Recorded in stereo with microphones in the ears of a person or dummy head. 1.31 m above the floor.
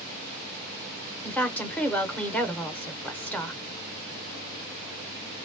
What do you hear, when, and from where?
1.2 s a woman speaking: 5° left (ahead or behind), 0.9 m